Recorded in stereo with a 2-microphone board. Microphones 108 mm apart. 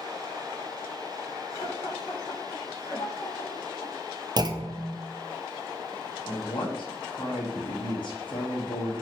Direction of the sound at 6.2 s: 50° left (ahead or behind).